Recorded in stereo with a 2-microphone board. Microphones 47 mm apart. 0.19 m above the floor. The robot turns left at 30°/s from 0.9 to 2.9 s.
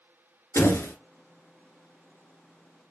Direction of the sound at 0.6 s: 60° left (ahead or behind).